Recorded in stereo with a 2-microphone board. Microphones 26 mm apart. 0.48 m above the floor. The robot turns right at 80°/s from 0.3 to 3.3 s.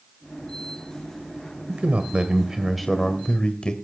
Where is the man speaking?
85° right, 1.6 m; by 3.7 s 40° left, 1.6 m.